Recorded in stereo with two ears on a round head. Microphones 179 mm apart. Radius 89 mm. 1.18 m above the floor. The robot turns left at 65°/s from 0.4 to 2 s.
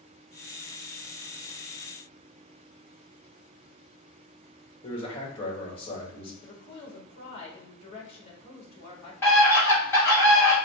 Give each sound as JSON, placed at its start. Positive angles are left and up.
{"t": 4.8, "sound": "a man speaking", "side_deg": 30, "distance_m": 2.0}
{"t": 6.4, "sound": "a woman speaking", "side_deg": 30, "distance_m": 1.9}
{"t": 9.2, "sound": "a scream", "side_deg": 15, "distance_m": 2.0}